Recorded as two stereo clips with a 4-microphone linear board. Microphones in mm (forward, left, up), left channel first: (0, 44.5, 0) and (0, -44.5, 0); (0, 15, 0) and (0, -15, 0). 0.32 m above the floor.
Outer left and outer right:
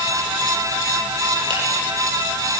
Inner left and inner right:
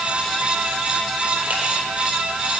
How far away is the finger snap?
About 9.5 m.